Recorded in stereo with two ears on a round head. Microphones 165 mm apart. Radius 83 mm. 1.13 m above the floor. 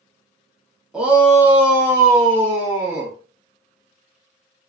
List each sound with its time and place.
0.9 s a shout: 5° right (ahead or behind), 0.7 m; by 3.1 s 10° right (ahead or behind), 1.2 m